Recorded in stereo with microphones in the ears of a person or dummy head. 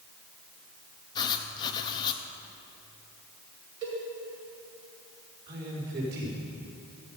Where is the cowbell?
70° right (ahead or behind), 5 m.